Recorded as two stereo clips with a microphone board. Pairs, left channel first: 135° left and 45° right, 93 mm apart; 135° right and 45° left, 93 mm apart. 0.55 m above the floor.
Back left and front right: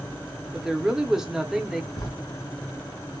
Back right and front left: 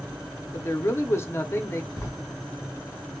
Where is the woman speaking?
125° right, 0.7 m.